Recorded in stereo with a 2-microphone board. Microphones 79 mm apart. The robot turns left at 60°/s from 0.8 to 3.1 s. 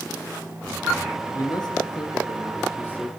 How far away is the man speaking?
About 2.5 m.